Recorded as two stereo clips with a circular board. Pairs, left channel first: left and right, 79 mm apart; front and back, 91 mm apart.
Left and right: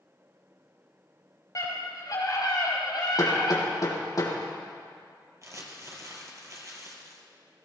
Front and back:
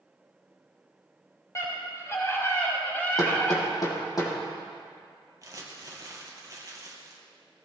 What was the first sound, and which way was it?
A scream, 50° left.